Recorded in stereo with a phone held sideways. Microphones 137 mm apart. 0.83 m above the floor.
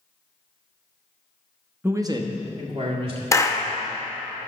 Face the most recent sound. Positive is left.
turn(degrees=25)  # may be behind; listen again after turning